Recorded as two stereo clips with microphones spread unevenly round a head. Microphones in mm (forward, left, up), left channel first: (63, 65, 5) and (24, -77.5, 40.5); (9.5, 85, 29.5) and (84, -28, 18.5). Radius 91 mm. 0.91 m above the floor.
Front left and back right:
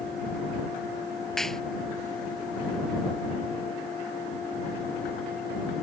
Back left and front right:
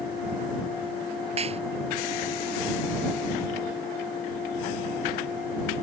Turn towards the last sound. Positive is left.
turn(degrees=-15)